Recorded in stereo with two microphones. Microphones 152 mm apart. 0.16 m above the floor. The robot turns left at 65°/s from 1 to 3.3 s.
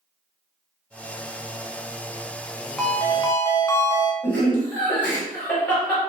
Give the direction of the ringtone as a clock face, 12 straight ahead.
6 o'clock.